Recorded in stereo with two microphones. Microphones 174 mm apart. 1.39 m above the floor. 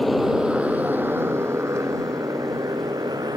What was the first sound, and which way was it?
A motorcycle, centre (ahead or behind).